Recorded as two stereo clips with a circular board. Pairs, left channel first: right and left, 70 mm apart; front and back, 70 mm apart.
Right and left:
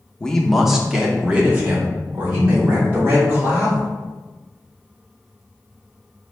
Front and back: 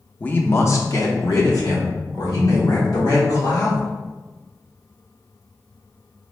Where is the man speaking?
30° right, 0.6 m; by 3.9 s 30° left, 2.5 m.